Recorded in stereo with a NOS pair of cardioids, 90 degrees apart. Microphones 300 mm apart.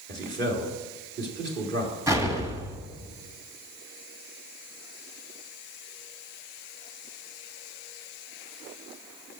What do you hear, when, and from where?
0.1 s a man speaking: 35° right, 3.5 m
2.1 s an explosion: 10° right, 1.8 m